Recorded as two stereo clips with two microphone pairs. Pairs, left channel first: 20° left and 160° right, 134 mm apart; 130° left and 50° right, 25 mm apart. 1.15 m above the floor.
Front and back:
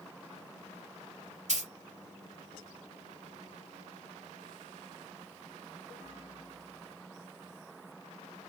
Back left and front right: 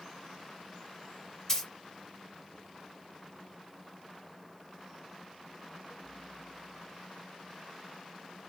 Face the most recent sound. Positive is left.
turn(degrees=-155)